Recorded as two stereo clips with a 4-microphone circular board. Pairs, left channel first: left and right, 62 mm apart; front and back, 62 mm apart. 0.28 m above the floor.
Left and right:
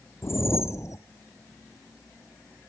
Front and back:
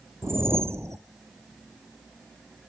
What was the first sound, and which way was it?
A whoosh, 130° left.